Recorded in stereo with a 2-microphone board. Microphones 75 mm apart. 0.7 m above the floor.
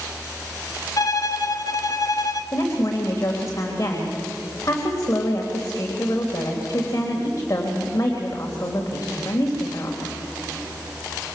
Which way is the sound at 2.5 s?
40° left (ahead or behind).